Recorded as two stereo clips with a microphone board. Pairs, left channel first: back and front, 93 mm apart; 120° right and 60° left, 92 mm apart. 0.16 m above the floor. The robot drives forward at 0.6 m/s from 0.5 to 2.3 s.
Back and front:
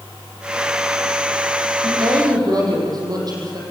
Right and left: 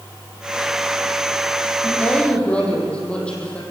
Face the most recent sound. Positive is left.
turn(degrees=-45)